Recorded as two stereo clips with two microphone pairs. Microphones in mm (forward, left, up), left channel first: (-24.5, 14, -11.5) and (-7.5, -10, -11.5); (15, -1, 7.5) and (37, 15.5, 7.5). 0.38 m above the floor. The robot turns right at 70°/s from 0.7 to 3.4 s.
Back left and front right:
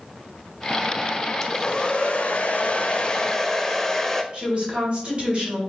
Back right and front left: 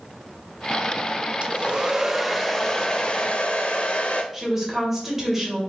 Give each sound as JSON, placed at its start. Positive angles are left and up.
{"t": 1.4, "sound": "a hair dryer", "azimuth_deg": 60, "distance_m": 0.5}
{"t": 4.3, "sound": "a woman speaking", "azimuth_deg": -35, "distance_m": 1.7}